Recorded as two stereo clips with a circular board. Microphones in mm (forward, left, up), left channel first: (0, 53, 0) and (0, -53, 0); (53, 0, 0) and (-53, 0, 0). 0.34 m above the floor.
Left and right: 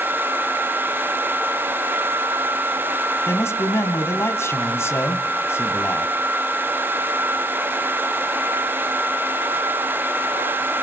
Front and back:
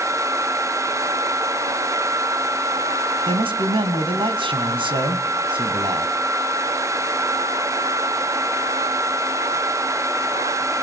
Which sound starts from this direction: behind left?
A man speaking, at 3.3 s.